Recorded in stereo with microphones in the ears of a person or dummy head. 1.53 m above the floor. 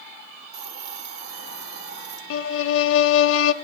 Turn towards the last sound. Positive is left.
turn(degrees=80)